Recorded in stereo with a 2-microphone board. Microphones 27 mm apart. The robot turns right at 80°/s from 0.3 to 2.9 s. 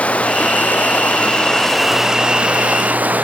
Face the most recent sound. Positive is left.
turn(degrees=-95)